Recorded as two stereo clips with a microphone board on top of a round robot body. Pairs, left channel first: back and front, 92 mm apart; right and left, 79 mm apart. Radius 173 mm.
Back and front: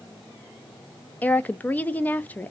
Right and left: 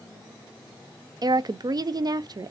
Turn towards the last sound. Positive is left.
turn(degrees=110)